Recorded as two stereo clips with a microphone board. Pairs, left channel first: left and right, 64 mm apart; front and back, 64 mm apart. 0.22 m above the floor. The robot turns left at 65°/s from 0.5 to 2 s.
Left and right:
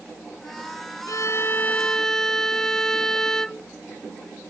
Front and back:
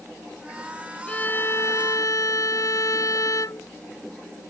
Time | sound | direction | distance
1.1 | a violin | 70° left | ?